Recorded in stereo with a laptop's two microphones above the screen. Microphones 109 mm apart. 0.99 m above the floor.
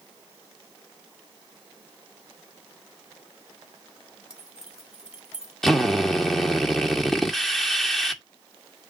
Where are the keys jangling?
10° right (ahead or behind), 3.5 m.